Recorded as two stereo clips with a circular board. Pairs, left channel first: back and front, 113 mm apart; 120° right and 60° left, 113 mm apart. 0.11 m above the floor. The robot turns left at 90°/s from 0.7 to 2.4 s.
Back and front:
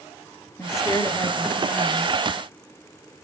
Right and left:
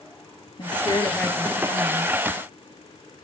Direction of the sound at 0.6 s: 130° right.